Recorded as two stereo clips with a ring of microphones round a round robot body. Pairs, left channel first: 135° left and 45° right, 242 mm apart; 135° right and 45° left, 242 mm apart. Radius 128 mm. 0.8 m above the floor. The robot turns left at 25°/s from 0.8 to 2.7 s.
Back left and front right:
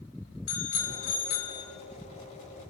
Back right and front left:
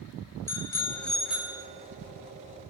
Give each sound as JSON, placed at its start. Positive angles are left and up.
{"t": 0.5, "sound": "a bicycle bell", "azimuth_deg": 145, "distance_m": 3.5}